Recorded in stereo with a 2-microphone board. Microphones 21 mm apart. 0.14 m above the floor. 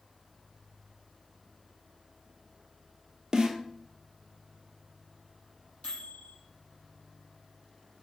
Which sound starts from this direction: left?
A microwave, at 5.8 s.